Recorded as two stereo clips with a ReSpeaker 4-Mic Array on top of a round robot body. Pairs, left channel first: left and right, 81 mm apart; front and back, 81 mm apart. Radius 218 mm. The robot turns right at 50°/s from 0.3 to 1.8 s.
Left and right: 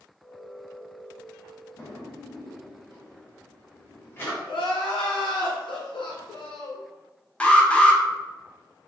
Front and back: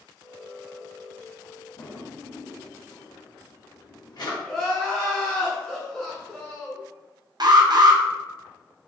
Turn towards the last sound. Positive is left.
turn(degrees=165)